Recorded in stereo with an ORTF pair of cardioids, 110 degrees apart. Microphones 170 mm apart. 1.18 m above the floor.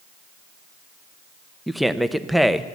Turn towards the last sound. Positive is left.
turn(degrees=0)